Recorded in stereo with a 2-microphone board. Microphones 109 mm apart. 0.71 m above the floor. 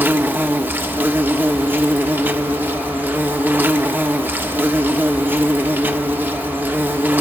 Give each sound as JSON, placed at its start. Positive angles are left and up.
{"t": 0.0, "sound": "an insect", "side_deg": -15, "distance_m": 1.3}